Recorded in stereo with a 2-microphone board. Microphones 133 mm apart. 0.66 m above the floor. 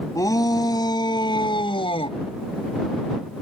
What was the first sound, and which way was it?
A shout, 25° left (ahead or behind).